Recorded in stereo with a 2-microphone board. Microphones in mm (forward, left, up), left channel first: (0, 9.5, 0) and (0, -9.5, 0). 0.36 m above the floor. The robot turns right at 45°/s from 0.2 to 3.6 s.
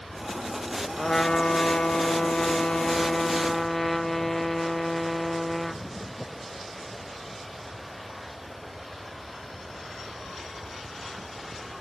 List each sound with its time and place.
1.0 s a trumpet: 50° left, 0.5 m; by 5.8 s 170° left, 0.5 m